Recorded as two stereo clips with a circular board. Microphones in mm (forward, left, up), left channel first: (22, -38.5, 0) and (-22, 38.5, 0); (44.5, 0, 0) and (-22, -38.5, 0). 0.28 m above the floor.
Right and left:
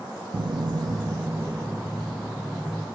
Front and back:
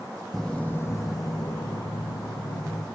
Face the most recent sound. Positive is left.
turn(degrees=30)